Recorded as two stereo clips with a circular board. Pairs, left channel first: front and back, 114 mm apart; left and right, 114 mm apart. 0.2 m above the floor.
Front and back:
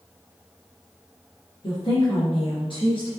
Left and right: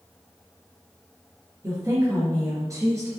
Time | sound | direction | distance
1.6 | a woman speaking | 30° right | 3 m